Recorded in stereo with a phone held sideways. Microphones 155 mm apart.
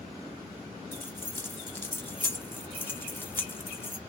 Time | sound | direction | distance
0.9 | keys jangling | 15° left (ahead or behind) | 0.9 m